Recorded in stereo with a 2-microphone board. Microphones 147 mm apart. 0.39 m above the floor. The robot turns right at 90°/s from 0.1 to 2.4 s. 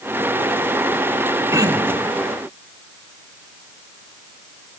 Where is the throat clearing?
150° right, 1.4 m; by 2.1 s 100° right, 1.4 m.